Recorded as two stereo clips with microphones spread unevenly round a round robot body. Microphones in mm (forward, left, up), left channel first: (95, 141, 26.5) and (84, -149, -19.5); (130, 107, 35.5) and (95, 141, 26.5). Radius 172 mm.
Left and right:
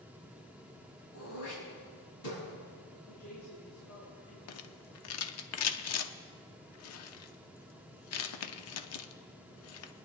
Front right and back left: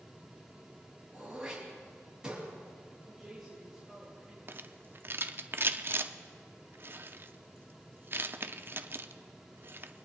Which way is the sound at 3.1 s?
50° left.